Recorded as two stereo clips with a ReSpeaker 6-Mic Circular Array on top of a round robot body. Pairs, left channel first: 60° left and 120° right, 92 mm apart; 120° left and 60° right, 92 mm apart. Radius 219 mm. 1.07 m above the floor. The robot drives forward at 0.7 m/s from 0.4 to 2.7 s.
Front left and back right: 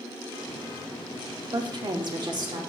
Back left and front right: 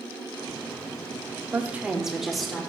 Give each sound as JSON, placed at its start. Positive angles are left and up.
{"t": 1.5, "sound": "a woman speaking", "azimuth_deg": -115, "distance_m": 0.8}